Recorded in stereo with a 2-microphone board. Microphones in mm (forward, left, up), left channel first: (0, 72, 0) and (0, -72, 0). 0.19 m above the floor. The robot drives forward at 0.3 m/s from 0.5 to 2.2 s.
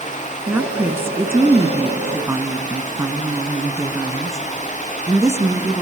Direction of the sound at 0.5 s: 15° right (ahead or behind).